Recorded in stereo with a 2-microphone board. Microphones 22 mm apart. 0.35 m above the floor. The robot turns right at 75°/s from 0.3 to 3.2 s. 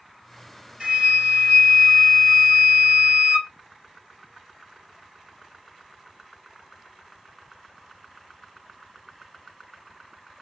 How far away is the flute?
About 2 m.